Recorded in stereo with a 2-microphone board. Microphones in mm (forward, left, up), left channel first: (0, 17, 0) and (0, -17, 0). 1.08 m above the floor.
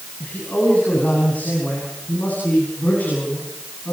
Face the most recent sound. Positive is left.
turn(degrees=60)  # may be behind; listen again after turning